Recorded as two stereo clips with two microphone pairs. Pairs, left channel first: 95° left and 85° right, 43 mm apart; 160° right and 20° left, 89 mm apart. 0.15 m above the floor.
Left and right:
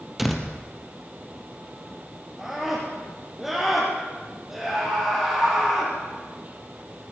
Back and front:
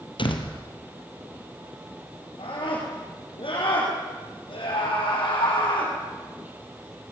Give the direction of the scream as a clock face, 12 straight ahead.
6 o'clock.